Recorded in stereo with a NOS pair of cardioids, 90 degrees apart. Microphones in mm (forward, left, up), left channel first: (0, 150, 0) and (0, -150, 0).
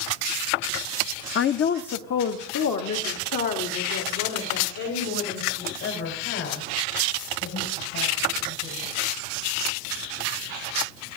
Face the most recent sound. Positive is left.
turn(degrees=70)